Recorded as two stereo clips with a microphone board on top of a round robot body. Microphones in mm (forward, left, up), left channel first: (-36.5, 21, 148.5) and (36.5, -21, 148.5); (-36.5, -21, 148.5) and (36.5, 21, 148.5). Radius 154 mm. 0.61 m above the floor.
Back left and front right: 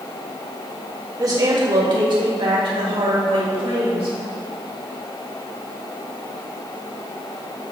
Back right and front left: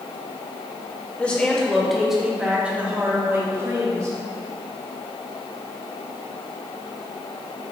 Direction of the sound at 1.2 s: 75° right.